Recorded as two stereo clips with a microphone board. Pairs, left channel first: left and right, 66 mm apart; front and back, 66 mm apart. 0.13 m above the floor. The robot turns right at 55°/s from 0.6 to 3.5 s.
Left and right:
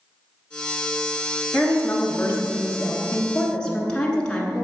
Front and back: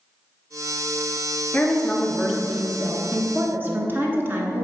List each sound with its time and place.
1.5 s a woman speaking: 50° left, 1.2 m; by 4.7 s 160° left, 1.2 m